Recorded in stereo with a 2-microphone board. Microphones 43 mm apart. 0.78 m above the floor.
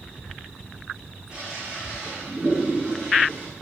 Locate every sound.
1.3 s a toilet flushing: 20° right (ahead or behind), 9 m